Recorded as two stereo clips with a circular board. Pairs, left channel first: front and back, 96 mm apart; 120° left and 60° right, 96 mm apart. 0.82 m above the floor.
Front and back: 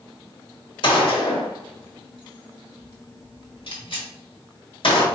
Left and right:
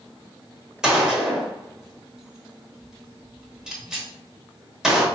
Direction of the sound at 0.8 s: 25° left.